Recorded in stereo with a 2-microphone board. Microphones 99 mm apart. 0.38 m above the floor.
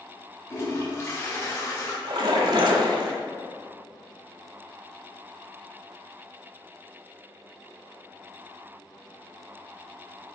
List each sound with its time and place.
0.5 s a toilet flushing: 35° left (ahead or behind), 2 m
2.0 s a splash: 60° right (ahead or behind), 1.2 m